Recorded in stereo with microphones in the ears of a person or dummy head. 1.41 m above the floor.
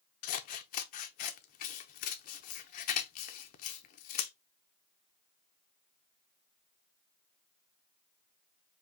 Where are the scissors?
45° left (ahead or behind), 0.7 m.